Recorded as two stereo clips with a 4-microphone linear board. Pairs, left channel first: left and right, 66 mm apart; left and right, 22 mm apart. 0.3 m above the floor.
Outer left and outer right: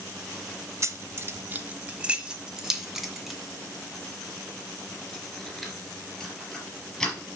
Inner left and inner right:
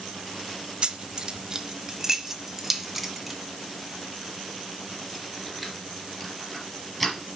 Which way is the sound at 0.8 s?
45° right (ahead or behind).